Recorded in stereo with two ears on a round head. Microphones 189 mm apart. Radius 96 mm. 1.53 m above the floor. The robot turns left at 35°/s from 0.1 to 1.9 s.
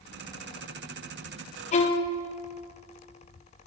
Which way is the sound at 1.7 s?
30° left (ahead or behind).